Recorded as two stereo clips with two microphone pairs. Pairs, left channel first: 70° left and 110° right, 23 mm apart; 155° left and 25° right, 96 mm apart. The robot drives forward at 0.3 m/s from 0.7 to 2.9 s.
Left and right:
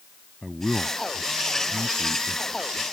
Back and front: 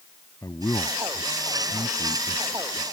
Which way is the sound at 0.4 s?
160° left.